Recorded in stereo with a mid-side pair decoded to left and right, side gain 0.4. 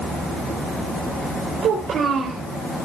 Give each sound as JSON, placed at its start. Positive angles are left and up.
{"t": 1.6, "sound": "a child speaking", "azimuth_deg": -65, "distance_m": 4.0}